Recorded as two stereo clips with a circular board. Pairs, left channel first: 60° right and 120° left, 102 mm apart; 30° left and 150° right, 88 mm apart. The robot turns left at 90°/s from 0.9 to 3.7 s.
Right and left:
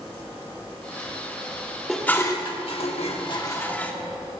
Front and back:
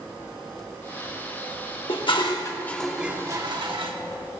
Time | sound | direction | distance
1.9 | dishes clattering | 30° left | 1.3 m